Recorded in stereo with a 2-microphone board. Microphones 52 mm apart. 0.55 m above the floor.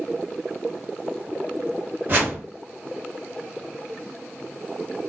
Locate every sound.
2.1 s a whoosh: 35° right (ahead or behind), 1.3 m